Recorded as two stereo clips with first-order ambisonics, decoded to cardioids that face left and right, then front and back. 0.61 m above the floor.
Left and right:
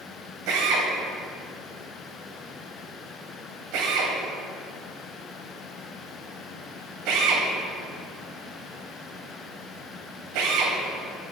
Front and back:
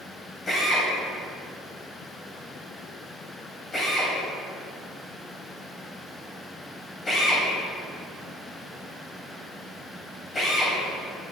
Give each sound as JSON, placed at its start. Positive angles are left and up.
{"t": 0.5, "sound": "a drill", "azimuth_deg": -70, "distance_m": 3.0}